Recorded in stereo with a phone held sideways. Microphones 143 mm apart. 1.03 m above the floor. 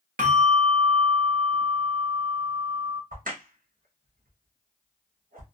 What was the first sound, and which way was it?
A bell, 75° right (ahead or behind).